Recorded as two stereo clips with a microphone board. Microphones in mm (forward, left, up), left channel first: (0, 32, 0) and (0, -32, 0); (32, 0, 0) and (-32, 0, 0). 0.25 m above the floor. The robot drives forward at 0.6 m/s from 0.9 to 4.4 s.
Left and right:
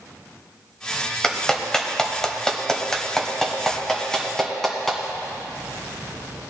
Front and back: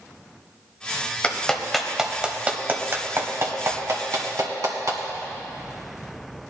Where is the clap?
25° left, 1.0 m; by 5.0 s 175° left, 1.8 m.